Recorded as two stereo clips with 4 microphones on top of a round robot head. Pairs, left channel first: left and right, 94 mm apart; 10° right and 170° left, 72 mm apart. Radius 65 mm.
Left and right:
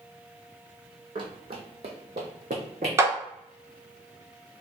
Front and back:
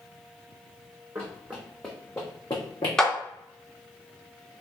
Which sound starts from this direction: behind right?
Running footsteps, at 1.1 s.